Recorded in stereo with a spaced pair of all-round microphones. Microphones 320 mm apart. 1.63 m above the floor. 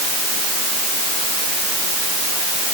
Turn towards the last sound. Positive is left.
No sound to turn to.